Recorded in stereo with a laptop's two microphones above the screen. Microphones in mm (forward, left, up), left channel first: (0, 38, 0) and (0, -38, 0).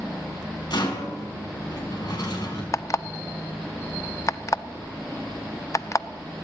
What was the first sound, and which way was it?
A rattle, 60° left (ahead or behind).